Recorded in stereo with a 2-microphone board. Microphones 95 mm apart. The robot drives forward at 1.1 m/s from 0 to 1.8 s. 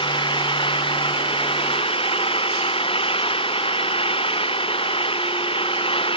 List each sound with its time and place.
0.0 s an engine running: 60° left (ahead or behind); by 6.2 s 70° left (ahead or behind)